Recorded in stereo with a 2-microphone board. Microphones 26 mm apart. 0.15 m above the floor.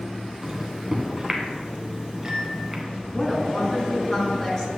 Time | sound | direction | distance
0.4 | a microwave | 15° right (ahead or behind) | 1.3 m
3.1 | a woman speaking | 20° left (ahead or behind) | 1.8 m